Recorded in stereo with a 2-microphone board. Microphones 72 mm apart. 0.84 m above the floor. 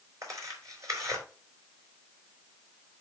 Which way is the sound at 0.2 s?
50° right (ahead or behind).